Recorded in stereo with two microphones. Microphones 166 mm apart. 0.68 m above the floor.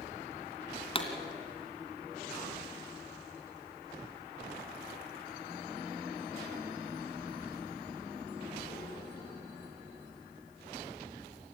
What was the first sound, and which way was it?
A pop, 30° left (ahead or behind).